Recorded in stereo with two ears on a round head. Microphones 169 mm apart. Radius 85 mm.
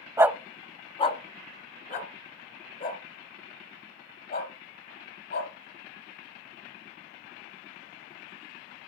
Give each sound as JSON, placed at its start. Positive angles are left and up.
{"t": 0.2, "sound": "a dog barking", "side_deg": -15, "distance_m": 0.6}